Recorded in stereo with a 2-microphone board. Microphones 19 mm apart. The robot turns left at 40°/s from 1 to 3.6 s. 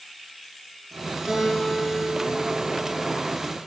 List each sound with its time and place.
1.3 s a guitar: 140° right, 4.5 m; by 3.2 s 140° left, 4.5 m